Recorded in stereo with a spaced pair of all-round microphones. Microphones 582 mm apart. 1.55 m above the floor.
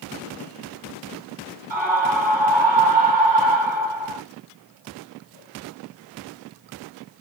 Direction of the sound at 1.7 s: 50° right (ahead or behind).